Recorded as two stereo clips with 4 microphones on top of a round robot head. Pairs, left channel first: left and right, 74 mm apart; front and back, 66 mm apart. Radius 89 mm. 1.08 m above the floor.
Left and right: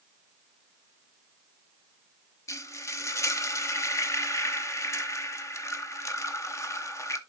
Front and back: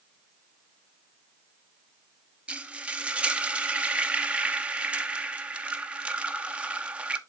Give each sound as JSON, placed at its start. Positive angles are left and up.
{"t": 2.5, "sound": "frying", "azimuth_deg": 115, "distance_m": 0.9}